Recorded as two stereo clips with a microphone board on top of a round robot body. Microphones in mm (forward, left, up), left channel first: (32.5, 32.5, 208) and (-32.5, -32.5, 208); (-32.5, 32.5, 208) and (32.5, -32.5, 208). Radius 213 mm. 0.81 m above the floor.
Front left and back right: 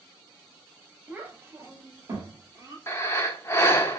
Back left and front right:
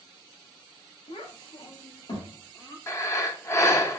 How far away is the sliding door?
No sliding door in this recording.